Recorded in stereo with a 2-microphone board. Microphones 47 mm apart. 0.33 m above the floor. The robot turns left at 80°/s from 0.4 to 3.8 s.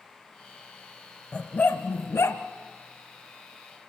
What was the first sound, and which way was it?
A dog barking, 30° left (ahead or behind).